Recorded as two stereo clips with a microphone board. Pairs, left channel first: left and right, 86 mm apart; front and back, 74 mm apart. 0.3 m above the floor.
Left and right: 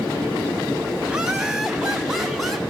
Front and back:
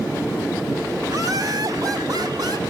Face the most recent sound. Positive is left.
turn(degrees=180)